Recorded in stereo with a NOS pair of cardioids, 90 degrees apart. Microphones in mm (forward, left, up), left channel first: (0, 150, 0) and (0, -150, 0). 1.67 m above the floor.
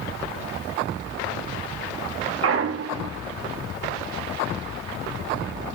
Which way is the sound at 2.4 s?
50° right.